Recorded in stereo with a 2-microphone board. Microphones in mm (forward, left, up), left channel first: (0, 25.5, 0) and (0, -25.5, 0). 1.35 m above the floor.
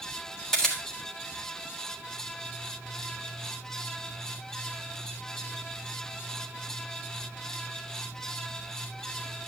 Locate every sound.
0.5 s a camera shutter: 10° left (ahead or behind), 3.5 m